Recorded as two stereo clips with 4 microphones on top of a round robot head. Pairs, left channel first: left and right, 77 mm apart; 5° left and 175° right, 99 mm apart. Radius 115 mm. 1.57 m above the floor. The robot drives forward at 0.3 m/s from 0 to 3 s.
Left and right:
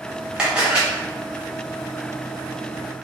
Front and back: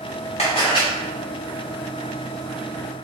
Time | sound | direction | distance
0.4 | a camera shutter | 15° right | 0.6 m